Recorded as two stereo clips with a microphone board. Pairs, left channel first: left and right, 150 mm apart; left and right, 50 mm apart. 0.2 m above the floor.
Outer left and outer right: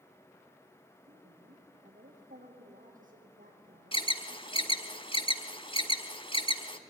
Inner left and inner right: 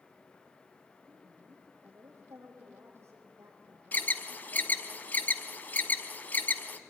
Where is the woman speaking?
60° right (ahead or behind), 8 m.